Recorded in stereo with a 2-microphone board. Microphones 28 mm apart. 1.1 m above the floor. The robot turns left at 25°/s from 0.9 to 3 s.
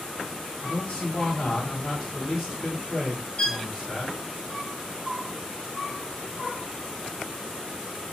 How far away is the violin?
About 0.7 m.